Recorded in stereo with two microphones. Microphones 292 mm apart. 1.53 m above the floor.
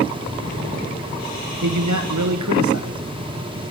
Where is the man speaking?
75° right (ahead or behind), 1.2 m.